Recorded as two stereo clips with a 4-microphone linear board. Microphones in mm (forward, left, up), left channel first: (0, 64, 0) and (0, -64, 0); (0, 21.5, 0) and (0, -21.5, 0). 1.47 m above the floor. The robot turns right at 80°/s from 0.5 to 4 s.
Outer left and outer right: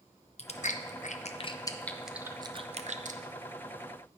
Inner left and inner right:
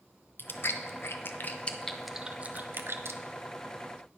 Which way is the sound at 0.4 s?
55° left (ahead or behind).